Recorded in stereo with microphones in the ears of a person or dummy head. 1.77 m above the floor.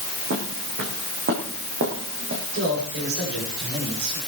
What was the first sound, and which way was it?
Footsteps, 60° right (ahead or behind).